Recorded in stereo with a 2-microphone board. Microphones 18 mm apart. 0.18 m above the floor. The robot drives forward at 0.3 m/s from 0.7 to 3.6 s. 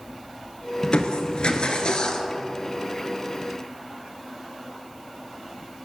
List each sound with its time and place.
0.8 s crushing: 75° left (ahead or behind), 0.6 m; by 2.3 s 50° left (ahead or behind), 0.7 m